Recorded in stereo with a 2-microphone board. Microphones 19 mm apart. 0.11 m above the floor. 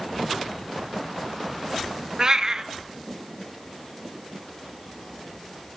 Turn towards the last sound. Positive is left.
turn(degrees=-35)  # may be behind; listen again after turning